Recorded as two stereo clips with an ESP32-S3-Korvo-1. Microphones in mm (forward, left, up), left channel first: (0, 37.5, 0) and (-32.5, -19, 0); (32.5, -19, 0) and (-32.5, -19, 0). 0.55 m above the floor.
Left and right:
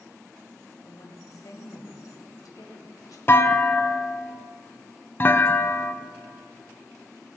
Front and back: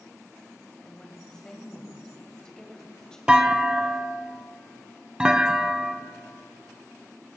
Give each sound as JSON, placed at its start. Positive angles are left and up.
{"t": 0.8, "sound": "a woman speaking", "azimuth_deg": 75, "distance_m": 2.0}
{"t": 3.3, "sound": "a clunk", "azimuth_deg": 105, "distance_m": 0.6}